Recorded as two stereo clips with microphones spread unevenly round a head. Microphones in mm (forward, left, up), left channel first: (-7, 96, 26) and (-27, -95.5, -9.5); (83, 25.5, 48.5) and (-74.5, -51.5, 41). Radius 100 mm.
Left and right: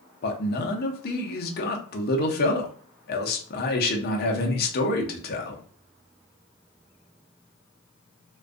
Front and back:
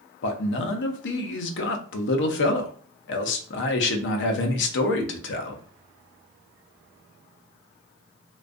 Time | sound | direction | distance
0.2 | a man speaking | 35° left | 0.5 m